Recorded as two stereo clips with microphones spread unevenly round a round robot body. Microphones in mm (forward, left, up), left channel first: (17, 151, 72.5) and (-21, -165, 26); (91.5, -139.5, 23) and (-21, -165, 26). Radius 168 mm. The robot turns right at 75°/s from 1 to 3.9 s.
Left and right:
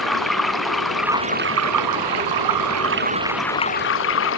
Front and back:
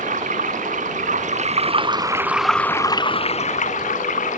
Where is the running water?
175° left; by 4.4 s 30° left.